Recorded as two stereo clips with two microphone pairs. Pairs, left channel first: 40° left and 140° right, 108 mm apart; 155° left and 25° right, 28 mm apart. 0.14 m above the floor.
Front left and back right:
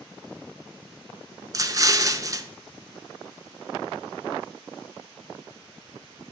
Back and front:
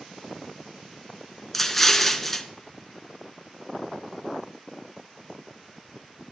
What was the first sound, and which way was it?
An explosion, 120° right.